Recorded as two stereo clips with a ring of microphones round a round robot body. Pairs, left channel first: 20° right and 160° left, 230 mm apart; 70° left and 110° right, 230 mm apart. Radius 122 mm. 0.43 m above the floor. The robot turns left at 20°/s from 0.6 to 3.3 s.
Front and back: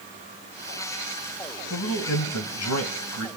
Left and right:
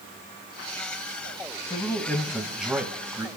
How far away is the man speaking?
About 3 m.